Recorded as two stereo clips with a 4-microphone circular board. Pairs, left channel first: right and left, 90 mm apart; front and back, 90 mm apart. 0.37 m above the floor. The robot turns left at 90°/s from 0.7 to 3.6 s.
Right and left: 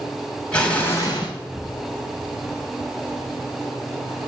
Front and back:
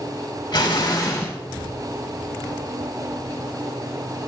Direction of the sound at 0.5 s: 15° right.